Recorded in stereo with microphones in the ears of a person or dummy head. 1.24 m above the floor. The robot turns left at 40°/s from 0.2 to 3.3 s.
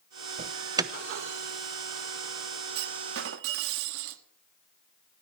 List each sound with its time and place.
0.4 s an alarm: 35° right (ahead or behind), 0.7 m; by 0.9 s 15° right (ahead or behind), 0.7 m
2.8 s a clunk: 55° right (ahead or behind), 1.3 m; by 4.2 s 75° right (ahead or behind), 1.3 m